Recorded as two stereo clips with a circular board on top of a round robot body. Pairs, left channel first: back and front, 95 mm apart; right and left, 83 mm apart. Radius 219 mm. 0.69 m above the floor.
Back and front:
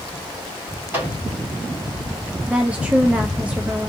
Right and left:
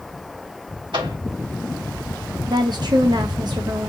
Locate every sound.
0.9 s a microwave: 70° left, 2.5 m
2.5 s a woman speaking: 75° left, 0.7 m